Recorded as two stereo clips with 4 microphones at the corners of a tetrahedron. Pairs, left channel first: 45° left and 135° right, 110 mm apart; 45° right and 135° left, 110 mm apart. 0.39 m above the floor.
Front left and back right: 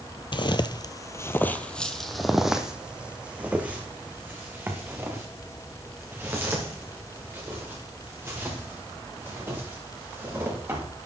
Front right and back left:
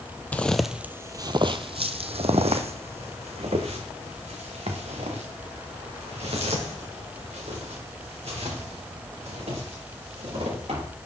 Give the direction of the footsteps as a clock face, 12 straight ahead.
11 o'clock.